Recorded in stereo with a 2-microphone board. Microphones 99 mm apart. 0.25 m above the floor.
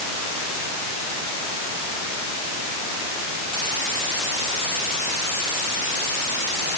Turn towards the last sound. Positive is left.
No sound to turn to.